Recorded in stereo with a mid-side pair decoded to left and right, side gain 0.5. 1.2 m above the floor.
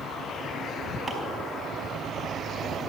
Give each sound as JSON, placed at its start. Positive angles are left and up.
{"t": 1.1, "sound": "chopping", "azimuth_deg": -20, "distance_m": 5.0}